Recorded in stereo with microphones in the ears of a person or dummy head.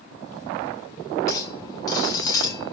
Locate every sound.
1.3 s a clink: 20° left (ahead or behind), 1.4 m